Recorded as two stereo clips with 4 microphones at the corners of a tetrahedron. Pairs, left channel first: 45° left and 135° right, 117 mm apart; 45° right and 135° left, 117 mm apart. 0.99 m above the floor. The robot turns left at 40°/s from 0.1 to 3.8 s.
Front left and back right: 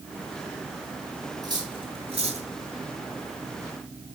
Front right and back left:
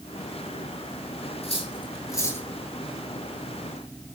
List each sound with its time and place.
1.4 s cutlery clinking: 80° right, 9.5 m; by 2.5 s 120° right, 9.5 m